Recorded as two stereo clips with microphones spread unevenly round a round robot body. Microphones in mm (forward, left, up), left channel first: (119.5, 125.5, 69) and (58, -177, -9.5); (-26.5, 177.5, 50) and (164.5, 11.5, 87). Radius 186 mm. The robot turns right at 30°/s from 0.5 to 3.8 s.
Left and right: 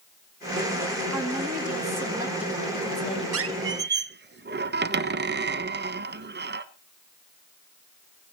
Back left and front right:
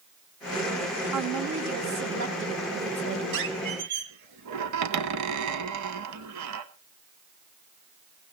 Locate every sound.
1.1 s a woman speaking: 60° right, 4 m; by 3.2 s 5° left, 4 m
3.3 s a squeak: 55° right, 1.3 m; by 6.7 s 40° right, 1.3 m